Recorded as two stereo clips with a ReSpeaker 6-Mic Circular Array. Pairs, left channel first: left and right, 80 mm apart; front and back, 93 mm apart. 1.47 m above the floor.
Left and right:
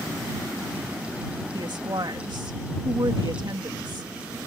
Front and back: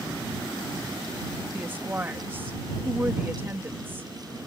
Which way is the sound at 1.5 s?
115° right.